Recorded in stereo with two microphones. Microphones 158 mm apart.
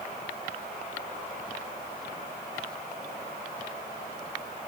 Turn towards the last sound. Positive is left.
No sound to turn to.